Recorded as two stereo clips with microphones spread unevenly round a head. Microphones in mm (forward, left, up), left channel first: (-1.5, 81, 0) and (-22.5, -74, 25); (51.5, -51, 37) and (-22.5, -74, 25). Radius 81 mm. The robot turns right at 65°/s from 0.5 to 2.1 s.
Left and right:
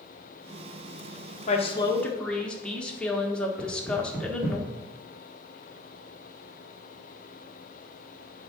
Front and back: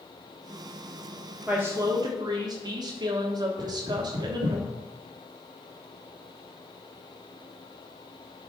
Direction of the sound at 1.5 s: 120° left.